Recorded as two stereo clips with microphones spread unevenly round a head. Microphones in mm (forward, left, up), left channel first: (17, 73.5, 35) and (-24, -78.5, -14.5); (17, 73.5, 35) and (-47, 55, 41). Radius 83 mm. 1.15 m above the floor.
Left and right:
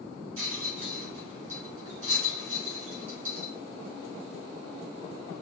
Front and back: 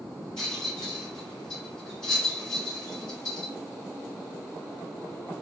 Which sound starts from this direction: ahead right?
A rattle, at 0.4 s.